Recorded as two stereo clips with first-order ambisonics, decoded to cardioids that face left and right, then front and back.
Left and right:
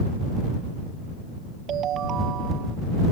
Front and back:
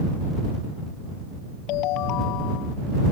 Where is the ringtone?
35° right.